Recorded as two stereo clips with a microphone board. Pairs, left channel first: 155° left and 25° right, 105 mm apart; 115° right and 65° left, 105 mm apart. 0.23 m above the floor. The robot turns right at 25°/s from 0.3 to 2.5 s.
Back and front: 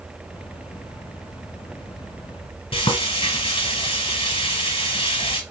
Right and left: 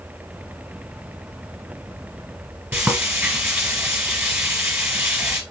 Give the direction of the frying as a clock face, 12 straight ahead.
7 o'clock.